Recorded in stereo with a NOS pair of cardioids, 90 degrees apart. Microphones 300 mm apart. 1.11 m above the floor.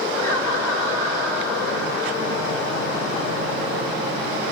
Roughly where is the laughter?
Left.